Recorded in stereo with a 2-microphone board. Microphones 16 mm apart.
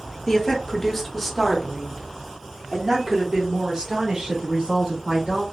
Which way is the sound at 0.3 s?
35° left (ahead or behind).